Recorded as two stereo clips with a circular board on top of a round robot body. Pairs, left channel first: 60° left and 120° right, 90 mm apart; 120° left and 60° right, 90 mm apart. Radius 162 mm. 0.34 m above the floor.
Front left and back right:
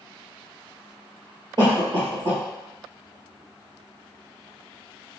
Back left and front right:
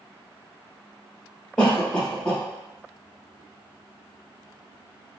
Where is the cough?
155° right, 2.0 m.